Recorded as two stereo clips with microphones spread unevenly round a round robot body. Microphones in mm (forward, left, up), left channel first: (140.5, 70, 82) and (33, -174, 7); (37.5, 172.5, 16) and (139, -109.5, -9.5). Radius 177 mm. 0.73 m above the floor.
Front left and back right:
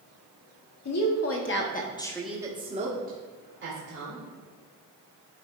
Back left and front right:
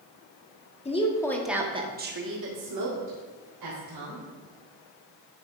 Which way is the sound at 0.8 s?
40° left.